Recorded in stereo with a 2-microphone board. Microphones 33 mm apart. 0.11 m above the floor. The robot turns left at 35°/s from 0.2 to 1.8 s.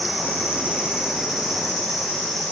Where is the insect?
130° right, 4.5 m; by 2.5 s 175° left, 4.5 m.